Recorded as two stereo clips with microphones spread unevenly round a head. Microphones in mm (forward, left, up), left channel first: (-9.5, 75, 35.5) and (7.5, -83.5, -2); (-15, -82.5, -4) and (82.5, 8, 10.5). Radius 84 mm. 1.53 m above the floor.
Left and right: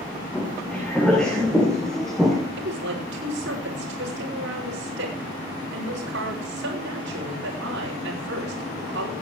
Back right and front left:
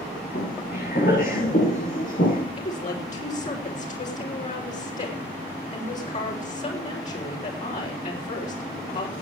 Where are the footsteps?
Straight behind, 5.5 m.